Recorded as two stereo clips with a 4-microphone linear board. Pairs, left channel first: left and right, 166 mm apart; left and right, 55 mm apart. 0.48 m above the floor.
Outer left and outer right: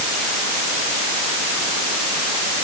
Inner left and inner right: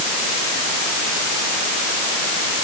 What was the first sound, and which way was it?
Only background noise.